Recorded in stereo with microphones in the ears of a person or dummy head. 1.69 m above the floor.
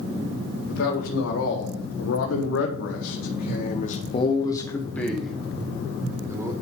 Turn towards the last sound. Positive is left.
turn(degrees=-20)  # may be behind; listen again after turning